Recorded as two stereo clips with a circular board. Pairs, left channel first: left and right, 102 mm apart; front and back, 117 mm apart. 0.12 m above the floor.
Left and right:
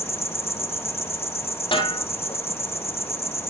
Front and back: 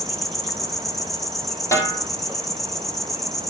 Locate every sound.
0.0 s an insect: 85° left, 1.1 m
1.7 s a snare drum: 60° left, 3.5 m